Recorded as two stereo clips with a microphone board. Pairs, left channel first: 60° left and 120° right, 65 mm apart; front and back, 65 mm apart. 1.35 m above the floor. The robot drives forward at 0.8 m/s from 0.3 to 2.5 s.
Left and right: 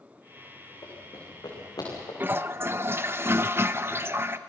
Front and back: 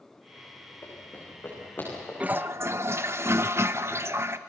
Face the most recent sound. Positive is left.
turn(degrees=-150)